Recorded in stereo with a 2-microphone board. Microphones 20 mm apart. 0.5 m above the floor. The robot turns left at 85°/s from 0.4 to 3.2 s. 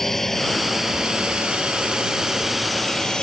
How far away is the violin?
No violin in this recording.